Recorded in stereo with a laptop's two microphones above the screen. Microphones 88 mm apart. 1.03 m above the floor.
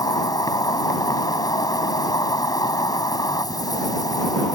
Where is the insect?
50° left (ahead or behind).